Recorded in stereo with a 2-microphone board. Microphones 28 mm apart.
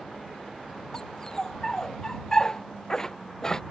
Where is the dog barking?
25° left (ahead or behind).